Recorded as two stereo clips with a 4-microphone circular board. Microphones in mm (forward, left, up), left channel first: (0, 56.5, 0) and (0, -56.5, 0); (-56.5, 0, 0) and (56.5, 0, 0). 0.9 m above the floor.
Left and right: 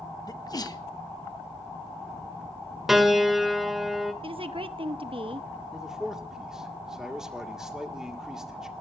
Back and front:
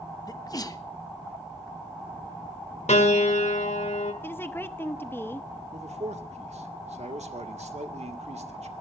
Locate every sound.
0.3 s a sneeze: 135° left, 1.0 m
2.9 s a piano: 175° right, 1.7 m
4.2 s a woman speaking: 110° right, 0.9 m
5.7 s a man speaking: 5° right, 1.9 m